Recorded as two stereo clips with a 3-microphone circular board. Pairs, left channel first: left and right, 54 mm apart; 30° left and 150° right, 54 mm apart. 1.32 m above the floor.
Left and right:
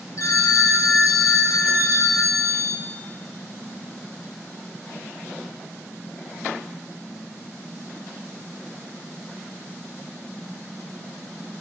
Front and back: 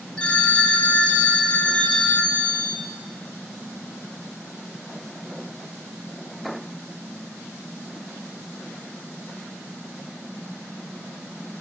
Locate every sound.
0.2 s a phone ringing: 100° left, 1.5 m